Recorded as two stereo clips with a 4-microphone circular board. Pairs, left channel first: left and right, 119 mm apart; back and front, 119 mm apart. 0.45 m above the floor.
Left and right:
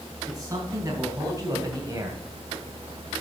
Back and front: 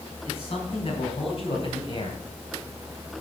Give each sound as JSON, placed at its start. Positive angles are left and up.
{"t": 0.2, "sound": "a man speaking", "azimuth_deg": -150, "distance_m": 4.0}